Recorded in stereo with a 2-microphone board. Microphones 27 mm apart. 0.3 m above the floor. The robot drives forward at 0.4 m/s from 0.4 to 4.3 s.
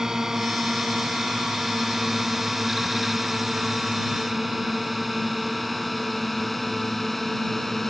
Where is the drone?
20° right (ahead or behind); by 7.9 s 10° left (ahead or behind).